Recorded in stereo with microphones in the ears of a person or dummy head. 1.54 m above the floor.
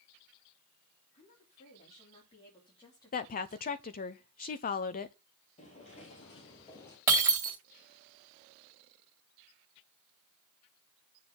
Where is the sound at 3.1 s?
40° left (ahead or behind), 0.7 m.